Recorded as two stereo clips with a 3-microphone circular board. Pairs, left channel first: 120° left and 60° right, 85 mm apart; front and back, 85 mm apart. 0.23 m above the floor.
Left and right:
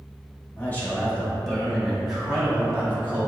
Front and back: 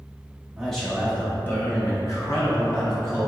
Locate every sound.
0.6 s a man speaking: 90° left, 1.2 m; by 3.3 s 5° left, 1.9 m